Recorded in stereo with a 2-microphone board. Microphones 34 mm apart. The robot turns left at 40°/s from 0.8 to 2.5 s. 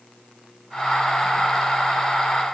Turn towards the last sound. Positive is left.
No sound to turn to.